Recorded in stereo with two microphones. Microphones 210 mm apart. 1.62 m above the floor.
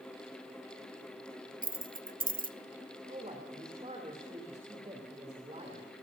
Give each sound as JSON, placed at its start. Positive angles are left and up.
{"t": 1.6, "sound": "keys jangling", "side_deg": -40, "distance_m": 0.7}
{"t": 3.1, "sound": "a man speaking", "side_deg": -30, "distance_m": 3.0}